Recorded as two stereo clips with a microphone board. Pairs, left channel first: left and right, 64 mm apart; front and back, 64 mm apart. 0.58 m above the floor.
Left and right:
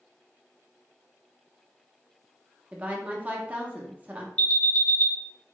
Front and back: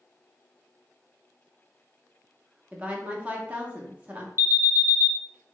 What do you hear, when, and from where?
2.7 s a woman speaking: 135° right, 0.7 m
4.4 s an alarm: 145° left, 0.6 m